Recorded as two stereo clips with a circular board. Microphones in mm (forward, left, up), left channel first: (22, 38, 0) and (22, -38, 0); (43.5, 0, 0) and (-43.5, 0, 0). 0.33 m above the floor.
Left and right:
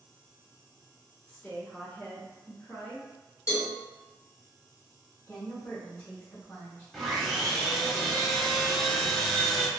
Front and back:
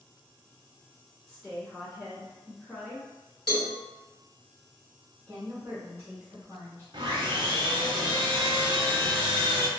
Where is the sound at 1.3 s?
75° left, 0.9 m.